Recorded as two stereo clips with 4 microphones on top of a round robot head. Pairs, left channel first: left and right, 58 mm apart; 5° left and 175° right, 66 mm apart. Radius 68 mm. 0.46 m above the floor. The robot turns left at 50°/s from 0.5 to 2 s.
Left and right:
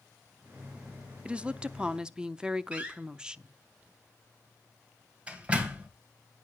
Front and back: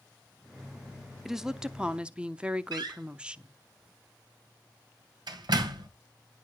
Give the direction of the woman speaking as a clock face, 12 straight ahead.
3 o'clock.